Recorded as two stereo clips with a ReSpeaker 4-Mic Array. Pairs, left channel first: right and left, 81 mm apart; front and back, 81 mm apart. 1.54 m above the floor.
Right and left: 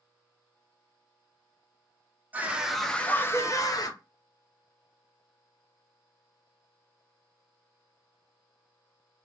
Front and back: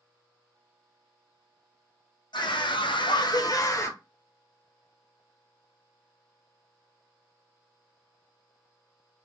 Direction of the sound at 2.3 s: 20° left.